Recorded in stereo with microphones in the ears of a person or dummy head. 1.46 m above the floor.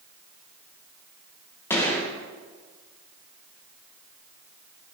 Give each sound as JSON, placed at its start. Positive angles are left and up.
{"t": 1.7, "sound": "a gunshot", "side_deg": 10, "distance_m": 1.0}